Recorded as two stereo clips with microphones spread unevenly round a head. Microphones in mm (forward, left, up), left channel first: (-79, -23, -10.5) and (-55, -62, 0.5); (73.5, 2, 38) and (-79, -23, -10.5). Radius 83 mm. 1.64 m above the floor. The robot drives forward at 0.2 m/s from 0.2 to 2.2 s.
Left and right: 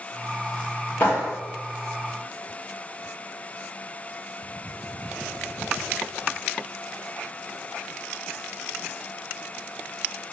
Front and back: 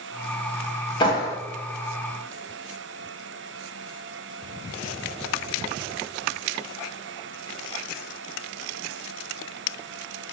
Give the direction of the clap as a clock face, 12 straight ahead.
10 o'clock.